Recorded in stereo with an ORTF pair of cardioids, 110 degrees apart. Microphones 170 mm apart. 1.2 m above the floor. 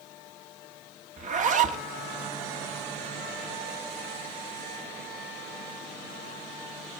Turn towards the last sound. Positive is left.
turn(degrees=-50)